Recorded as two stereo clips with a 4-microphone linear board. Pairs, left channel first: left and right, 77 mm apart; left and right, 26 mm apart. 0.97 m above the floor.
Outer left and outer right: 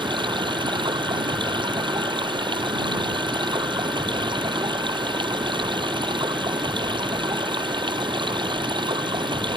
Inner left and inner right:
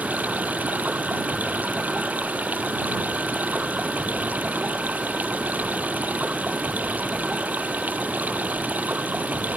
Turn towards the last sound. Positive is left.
turn(degrees=-90)